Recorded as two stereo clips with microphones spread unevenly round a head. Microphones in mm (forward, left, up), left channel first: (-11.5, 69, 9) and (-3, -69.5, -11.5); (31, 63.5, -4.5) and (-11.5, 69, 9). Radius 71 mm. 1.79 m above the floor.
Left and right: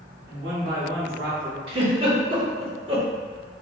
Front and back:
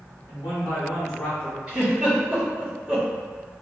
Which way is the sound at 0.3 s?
75° right.